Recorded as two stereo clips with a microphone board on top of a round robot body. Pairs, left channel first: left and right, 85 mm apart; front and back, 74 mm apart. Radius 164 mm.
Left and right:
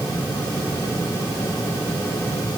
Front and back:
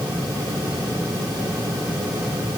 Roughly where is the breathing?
I don't hear breathing.